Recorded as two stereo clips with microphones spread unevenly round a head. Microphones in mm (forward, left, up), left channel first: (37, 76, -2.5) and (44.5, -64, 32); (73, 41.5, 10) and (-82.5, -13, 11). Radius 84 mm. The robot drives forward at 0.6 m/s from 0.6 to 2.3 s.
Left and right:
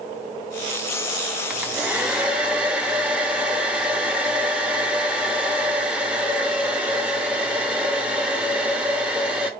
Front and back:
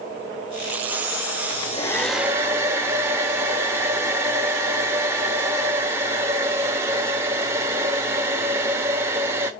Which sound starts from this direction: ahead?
A hair dryer, at 1.5 s.